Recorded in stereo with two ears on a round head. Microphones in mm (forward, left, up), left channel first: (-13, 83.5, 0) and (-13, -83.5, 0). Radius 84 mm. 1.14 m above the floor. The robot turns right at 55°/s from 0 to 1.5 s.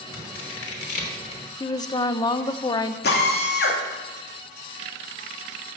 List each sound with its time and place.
0.1 s scissors: 80° left, 3 m; by 1.4 s 30° left (ahead or behind), 3 m
1.6 s a woman speaking: 25° left (ahead or behind), 0.7 m
3.0 s a drill: 65° left (ahead or behind), 2.5 m